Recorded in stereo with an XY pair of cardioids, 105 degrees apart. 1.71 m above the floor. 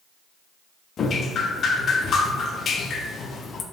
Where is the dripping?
50° left, 0.5 m.